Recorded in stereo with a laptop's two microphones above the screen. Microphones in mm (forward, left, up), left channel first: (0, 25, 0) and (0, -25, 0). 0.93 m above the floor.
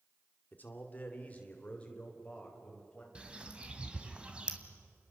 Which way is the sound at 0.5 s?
35° left (ahead or behind).